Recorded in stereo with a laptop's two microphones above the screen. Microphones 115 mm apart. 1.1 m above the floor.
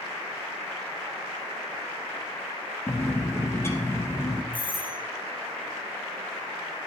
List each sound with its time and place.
2.9 s a bird: 25° left (ahead or behind), 1.3 m
4.5 s a doorbell: 45° right (ahead or behind), 1.8 m